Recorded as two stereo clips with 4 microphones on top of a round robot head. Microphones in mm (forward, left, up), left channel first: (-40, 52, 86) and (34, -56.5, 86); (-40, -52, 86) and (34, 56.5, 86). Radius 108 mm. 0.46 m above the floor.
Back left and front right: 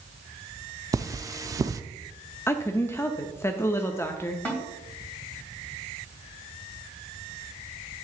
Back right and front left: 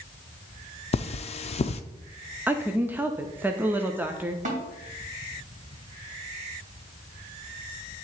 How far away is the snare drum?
About 2.5 m.